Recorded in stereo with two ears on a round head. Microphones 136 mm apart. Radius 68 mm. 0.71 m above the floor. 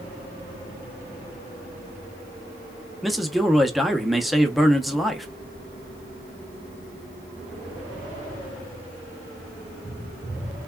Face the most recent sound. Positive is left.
turn(degrees=0)  # may be behind; listen again after turning